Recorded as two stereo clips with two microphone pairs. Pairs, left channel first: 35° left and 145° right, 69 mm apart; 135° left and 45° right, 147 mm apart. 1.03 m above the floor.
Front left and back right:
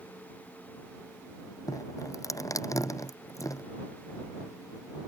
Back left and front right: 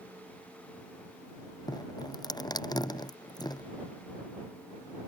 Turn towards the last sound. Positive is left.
turn(degrees=75)